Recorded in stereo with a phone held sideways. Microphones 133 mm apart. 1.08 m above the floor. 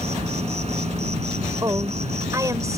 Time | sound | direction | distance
0.0 | an insect | 60° right (ahead or behind) | ?
1.6 | a woman speaking | 25° right (ahead or behind) | ?